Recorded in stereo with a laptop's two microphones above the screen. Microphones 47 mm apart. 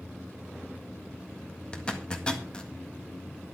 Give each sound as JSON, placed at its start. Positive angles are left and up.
{"t": 1.7, "sound": "a zipper", "side_deg": 20, "distance_m": 1.6}